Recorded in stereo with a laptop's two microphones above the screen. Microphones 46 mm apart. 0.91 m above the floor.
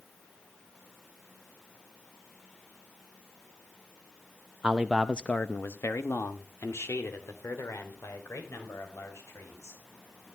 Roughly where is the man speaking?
Right.